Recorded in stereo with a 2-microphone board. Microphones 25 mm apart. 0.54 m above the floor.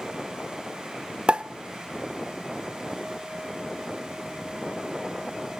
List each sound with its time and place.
1.3 s a pop: 40° right (ahead or behind), 0.7 m